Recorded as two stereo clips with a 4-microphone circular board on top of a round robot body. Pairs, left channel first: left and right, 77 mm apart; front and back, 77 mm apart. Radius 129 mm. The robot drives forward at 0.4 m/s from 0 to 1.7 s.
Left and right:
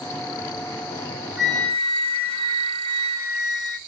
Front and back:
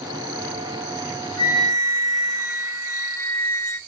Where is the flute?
50° right, 3 m.